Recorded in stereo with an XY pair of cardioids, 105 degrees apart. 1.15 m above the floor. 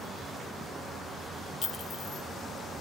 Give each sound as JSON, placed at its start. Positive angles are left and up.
{"t": 1.6, "sound": "a clink", "azimuth_deg": 50, "distance_m": 0.8}